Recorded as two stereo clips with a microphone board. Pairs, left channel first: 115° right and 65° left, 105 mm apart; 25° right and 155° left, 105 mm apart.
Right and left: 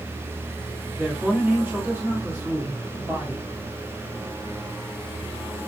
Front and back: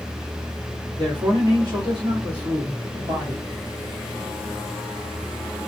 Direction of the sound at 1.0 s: 135° left.